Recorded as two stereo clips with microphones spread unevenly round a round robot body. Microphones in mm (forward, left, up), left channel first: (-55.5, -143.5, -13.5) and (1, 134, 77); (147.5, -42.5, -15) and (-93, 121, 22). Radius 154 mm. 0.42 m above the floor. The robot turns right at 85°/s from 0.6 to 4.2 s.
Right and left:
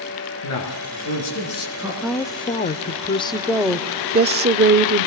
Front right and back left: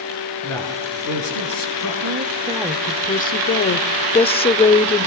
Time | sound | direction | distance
0.4 | a man speaking | 115° right | 8 m
2.0 | a woman speaking | 170° right | 0.9 m